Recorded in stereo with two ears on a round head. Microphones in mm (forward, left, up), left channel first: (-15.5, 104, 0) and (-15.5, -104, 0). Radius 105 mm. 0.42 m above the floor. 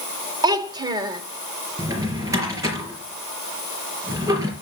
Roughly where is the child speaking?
Centre.